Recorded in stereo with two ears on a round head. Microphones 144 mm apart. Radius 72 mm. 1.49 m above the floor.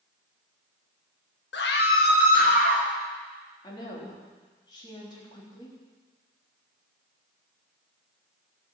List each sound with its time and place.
1.5 s a scream: 75° left (ahead or behind), 1.7 m; by 2.9 s 55° left (ahead or behind), 3.5 m
3.6 s a woman speaking: 25° left (ahead or behind), 3.5 m